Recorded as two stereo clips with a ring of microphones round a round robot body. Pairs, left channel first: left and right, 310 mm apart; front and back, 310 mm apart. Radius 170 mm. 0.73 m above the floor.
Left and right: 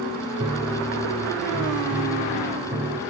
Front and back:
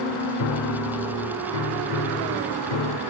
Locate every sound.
0.4 s a piano: 15° right, 1.2 m